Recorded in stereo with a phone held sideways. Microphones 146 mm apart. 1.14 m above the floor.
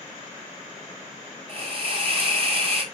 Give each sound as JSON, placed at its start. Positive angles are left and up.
{"t": 1.5, "sound": "a hiss", "side_deg": -45, "distance_m": 3.0}